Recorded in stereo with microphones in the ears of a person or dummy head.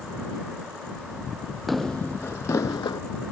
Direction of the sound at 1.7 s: Centre (ahead or behind).